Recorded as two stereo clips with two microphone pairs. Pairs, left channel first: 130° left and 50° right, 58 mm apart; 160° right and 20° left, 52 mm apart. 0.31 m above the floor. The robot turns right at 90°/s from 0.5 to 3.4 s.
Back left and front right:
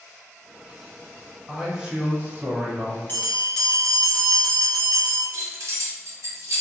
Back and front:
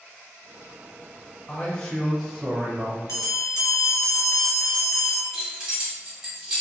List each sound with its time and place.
1.5 s a man speaking: 130° right, 0.9 m; by 3.0 s 5° left, 0.9 m
3.1 s a bell: 175° right, 0.9 m; by 5.2 s 145° right, 0.9 m
5.3 s keys jangling: 50° right, 1.1 m